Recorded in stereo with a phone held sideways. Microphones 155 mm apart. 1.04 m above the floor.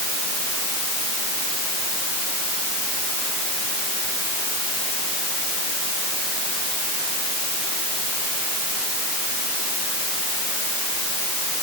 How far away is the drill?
No drill in this recording.